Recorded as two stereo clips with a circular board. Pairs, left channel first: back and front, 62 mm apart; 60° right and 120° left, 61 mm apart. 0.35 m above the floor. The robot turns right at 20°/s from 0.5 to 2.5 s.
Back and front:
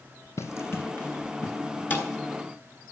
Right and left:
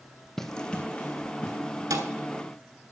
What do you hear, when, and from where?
0.4 s running footsteps: 145° right, 0.8 m; by 1.8 s 110° right, 2.5 m
1.9 s a thud: 120° left, 1.3 m; by 2.1 s 125° left, 1.3 m